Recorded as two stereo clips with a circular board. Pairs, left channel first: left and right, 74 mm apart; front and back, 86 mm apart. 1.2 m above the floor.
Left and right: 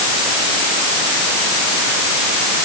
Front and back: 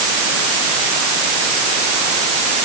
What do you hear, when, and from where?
Only background noise.